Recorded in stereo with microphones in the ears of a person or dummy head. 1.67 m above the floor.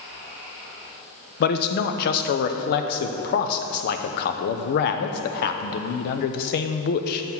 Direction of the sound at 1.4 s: 55° left (ahead or behind).